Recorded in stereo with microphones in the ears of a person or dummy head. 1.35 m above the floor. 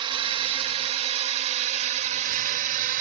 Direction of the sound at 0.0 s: 30° right (ahead or behind).